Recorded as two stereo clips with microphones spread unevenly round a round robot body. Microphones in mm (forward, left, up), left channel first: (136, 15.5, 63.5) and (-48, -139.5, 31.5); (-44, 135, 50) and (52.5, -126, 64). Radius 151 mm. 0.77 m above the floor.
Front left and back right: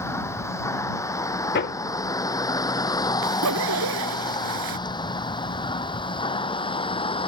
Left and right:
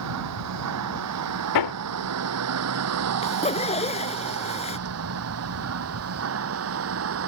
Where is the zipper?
Straight behind.